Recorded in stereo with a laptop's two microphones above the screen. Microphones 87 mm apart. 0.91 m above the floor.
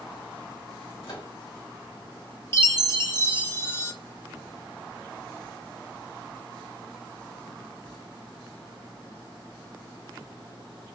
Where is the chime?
30° left (ahead or behind), 1.0 m.